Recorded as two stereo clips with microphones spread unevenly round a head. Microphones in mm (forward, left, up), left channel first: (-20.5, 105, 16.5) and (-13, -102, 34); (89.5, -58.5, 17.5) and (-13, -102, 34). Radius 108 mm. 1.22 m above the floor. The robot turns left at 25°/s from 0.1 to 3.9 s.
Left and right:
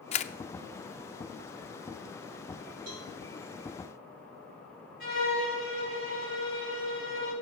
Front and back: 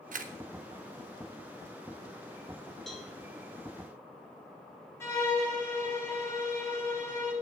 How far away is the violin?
About 8 m.